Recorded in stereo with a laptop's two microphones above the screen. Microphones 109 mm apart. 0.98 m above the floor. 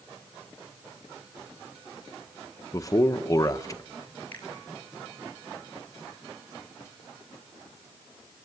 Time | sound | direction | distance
2.7 | a man speaking | 30° left (ahead or behind) | 1.0 m
4.3 | a finger snap | 15° left (ahead or behind) | 7 m